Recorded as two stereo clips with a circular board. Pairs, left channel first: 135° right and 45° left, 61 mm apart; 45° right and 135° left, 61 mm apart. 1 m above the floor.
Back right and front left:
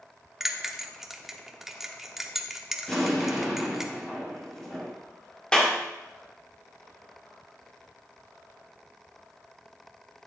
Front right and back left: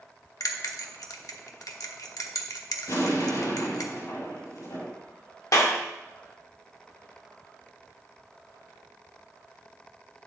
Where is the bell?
40° right, 1.0 m.